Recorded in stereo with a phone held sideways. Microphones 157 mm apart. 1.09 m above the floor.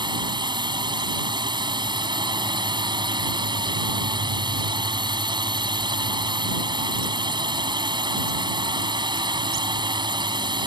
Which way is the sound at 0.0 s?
30° right (ahead or behind).